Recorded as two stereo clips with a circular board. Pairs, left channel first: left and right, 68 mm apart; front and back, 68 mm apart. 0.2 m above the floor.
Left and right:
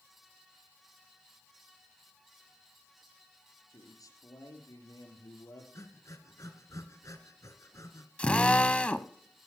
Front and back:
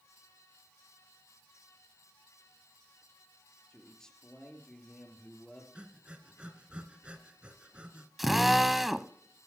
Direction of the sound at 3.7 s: 80° left.